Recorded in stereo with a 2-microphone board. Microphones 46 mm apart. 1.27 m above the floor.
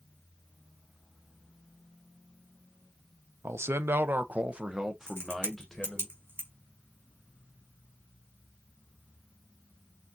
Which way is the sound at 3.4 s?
80° right.